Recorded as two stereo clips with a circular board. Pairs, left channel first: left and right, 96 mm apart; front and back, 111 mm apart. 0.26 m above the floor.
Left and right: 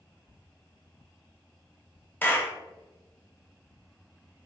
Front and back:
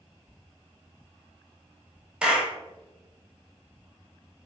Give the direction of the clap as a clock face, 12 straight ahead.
8 o'clock.